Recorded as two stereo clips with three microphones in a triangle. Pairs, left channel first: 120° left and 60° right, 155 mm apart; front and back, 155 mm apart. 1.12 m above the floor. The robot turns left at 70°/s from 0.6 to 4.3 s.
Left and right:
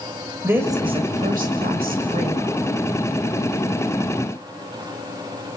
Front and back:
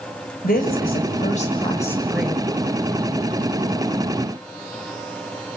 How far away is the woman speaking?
About 6 m.